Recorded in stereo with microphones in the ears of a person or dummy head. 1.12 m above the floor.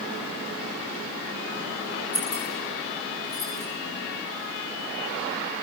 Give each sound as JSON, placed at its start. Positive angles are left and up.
{"t": 2.1, "sound": "keys jangling", "side_deg": 35, "distance_m": 8.5}